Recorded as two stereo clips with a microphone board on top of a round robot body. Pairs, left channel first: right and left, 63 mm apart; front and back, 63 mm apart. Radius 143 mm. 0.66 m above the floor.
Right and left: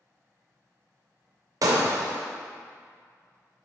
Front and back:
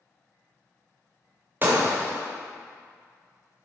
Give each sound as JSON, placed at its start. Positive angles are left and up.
{"t": 1.6, "sound": "breaking glass", "azimuth_deg": 120, "distance_m": 0.6}